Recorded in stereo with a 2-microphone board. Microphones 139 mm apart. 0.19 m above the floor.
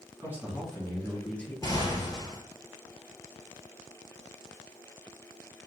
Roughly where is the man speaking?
Centre.